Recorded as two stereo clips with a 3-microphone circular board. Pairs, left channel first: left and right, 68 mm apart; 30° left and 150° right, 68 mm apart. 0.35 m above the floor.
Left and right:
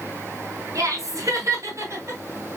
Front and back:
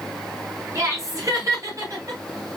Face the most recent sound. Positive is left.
turn(degrees=-135)